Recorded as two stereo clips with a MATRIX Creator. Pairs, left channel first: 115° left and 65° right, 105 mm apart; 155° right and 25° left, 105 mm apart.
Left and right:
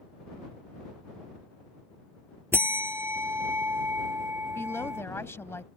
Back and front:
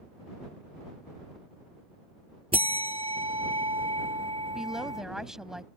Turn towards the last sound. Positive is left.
turn(degrees=100)